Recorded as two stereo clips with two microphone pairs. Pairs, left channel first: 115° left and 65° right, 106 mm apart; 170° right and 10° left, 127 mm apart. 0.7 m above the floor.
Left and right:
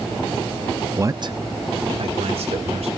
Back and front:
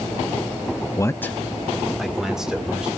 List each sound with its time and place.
1.0 s a man speaking: 120° right, 0.6 m; by 2.9 s 70° right, 2.5 m